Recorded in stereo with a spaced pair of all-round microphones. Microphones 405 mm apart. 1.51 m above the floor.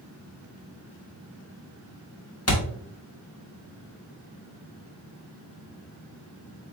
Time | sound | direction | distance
2.5 | a thud | 35° left (ahead or behind) | 1.2 m